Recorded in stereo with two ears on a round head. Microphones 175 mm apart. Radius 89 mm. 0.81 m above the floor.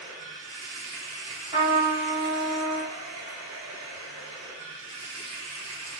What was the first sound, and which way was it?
Running water, 75° right (ahead or behind).